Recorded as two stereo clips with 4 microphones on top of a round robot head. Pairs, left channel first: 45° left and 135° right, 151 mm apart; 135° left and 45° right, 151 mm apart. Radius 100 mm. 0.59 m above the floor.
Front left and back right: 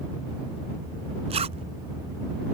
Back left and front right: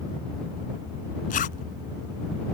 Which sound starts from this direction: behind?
A zipper, at 1.3 s.